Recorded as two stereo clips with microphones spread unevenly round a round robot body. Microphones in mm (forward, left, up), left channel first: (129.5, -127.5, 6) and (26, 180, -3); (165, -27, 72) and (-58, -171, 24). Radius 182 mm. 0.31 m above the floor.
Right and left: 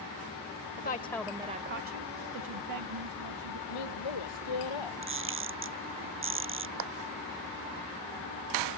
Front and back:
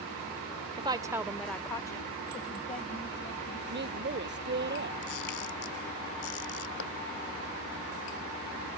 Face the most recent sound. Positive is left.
turn(degrees=95)